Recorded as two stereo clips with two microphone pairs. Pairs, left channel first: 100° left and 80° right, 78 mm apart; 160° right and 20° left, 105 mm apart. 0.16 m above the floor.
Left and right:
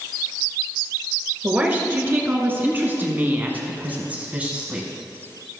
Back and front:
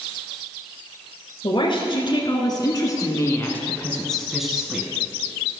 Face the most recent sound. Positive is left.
turn(degrees=-25)